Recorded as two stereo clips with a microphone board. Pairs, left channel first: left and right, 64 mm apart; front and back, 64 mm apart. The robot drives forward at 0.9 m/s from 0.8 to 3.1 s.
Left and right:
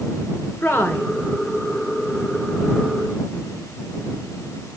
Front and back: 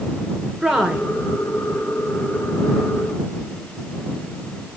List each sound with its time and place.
0.6 s a woman speaking: 100° left, 1.5 m; by 1.1 s 115° left, 1.6 m